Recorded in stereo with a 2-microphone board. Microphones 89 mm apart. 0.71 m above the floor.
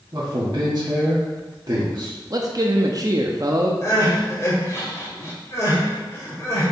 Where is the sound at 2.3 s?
45° right (ahead or behind), 0.7 m.